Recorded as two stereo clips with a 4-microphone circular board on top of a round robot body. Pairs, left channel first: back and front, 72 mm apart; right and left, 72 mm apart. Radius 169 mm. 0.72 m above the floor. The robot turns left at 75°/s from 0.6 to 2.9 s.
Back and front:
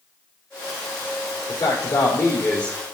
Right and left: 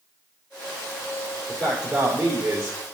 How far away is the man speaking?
About 3 m.